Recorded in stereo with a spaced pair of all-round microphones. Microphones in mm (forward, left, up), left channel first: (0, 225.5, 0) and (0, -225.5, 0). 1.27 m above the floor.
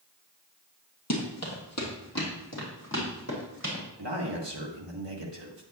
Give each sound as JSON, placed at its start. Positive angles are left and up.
{"t": 1.1, "sound": "running footsteps", "side_deg": 35, "distance_m": 2.5}
{"t": 4.0, "sound": "a man speaking", "side_deg": -70, "distance_m": 1.7}